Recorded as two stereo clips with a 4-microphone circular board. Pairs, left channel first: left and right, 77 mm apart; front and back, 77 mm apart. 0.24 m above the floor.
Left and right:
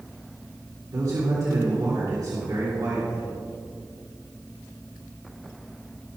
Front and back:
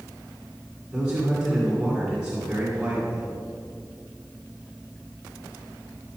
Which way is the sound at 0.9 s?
105° right.